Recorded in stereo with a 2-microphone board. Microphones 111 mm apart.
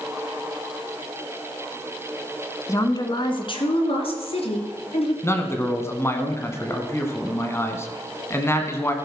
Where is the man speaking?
25° left (ahead or behind), 1.3 m.